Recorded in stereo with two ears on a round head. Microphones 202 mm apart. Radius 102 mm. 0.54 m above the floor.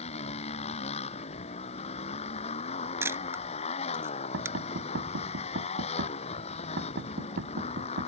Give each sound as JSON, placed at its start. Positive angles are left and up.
{"t": 0.0, "sound": "a motorcycle", "side_deg": 25}
{"t": 3.0, "sound": "a camera shutter", "side_deg": -10}
{"t": 4.3, "sound": "knocking", "side_deg": -55}